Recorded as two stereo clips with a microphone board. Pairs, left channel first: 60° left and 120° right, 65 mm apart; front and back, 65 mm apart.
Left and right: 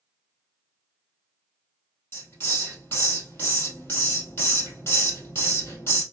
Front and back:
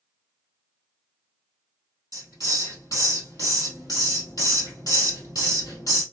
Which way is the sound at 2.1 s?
15° left.